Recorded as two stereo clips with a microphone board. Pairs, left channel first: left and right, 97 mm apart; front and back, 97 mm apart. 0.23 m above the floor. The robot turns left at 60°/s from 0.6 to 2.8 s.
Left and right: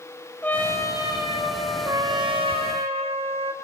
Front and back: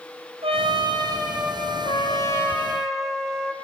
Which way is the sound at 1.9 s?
30° right.